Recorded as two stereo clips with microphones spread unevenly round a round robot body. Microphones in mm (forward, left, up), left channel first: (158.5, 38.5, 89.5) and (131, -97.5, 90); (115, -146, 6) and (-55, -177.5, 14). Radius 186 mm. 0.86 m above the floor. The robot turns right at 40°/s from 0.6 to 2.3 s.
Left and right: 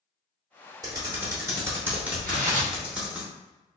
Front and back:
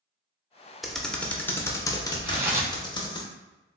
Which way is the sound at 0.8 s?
90° right.